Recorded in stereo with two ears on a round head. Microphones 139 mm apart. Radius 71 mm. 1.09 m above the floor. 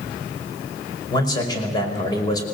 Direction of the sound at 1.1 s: 25° left (ahead or behind).